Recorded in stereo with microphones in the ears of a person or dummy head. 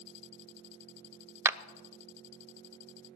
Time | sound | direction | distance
1.4 | a clap | 15° right (ahead or behind) | 0.5 m